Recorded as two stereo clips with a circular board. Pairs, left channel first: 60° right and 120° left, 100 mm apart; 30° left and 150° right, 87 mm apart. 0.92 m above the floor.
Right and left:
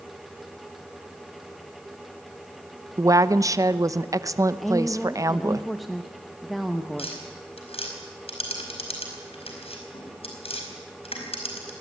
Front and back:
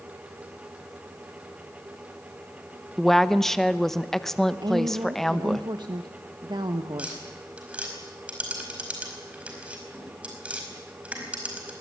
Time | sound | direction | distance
3.0 | a woman speaking | 110° left | 0.8 m
4.6 | a woman speaking | 150° right | 1.0 m
7.0 | tapping | 75° right | 4.5 m